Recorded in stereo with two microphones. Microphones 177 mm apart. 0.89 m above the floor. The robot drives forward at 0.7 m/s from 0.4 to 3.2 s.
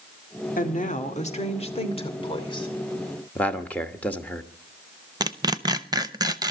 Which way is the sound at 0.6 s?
50° left (ahead or behind).